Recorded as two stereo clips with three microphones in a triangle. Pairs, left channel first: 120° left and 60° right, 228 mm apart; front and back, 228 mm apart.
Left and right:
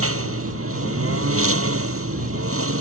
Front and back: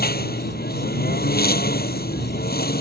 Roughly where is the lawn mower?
Ahead right.